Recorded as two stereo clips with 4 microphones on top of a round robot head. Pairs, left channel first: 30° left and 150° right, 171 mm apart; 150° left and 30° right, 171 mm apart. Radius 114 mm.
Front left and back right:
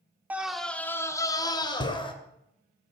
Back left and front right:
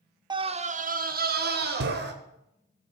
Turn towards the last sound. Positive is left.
turn(degrees=-30)